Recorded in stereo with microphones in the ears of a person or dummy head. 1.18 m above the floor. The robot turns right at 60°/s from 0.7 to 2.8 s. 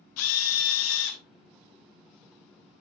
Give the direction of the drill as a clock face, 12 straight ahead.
9 o'clock.